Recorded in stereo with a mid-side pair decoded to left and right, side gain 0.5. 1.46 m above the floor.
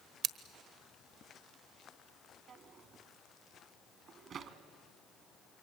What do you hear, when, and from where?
0.2 s scissors: 65° right, 1.2 m
2.5 s a drawer: 55° right, 1.8 m